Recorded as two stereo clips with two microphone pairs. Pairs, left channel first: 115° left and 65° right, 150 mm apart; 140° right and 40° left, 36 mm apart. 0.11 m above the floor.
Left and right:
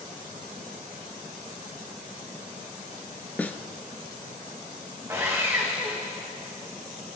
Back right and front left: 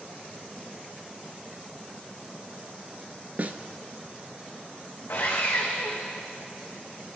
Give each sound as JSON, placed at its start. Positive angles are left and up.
{"t": 3.4, "sound": "a snare drum", "azimuth_deg": 40, "distance_m": 0.7}
{"t": 5.1, "sound": "sawing", "azimuth_deg": -135, "distance_m": 3.0}